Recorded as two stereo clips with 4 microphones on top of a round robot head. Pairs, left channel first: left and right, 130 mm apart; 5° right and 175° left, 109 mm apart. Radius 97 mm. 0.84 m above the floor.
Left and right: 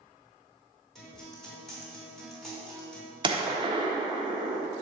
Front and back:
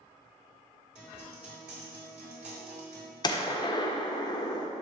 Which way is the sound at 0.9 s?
Straight behind.